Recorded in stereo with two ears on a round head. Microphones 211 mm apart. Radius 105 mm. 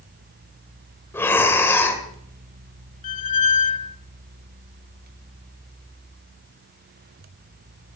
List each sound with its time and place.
1.1 s breathing: 10° left (ahead or behind), 2.5 m
3.0 s a squeak: 35° left (ahead or behind), 0.5 m